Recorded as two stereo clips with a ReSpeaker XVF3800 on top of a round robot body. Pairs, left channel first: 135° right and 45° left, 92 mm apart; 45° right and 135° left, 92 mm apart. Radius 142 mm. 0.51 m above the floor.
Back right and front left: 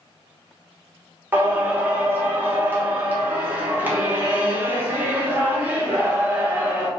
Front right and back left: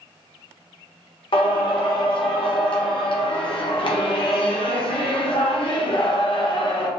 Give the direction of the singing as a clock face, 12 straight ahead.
1 o'clock.